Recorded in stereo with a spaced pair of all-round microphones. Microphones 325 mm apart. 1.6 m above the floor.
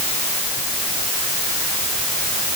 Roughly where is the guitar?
I don't hear a guitar.